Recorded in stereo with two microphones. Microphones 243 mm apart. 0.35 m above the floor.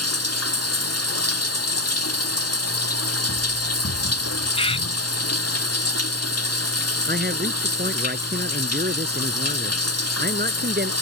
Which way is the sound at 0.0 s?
85° left.